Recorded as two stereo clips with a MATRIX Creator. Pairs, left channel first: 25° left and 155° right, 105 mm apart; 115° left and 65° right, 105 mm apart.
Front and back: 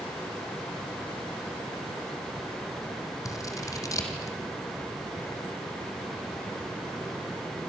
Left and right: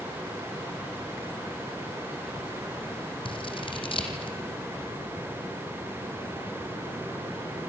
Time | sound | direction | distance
3.2 | scissors | 80° left | 2.5 m